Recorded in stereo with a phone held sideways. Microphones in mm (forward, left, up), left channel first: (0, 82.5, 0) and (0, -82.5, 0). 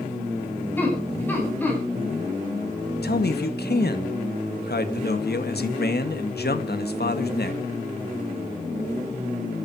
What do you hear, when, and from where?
0.8 s laughter: 10° left (ahead or behind), 8.5 m
3.0 s a man speaking: 75° left (ahead or behind), 1.8 m